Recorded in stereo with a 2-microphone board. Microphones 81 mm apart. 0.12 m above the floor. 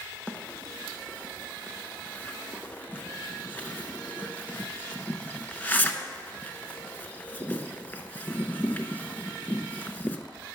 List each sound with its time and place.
0.3 s a bird: 20° left (ahead or behind), 0.6 m